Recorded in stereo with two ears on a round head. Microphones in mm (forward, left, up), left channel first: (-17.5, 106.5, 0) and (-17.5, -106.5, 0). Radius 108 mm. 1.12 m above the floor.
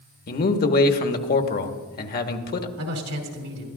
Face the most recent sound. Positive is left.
turn(degrees=-75)  # may be behind; listen again after turning